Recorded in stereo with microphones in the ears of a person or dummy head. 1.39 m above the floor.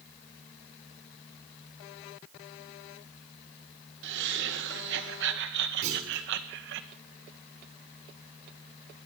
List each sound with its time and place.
4.0 s laughter: 60° right (ahead or behind), 1.7 m
5.8 s a clunk: 45° right (ahead or behind), 3.5 m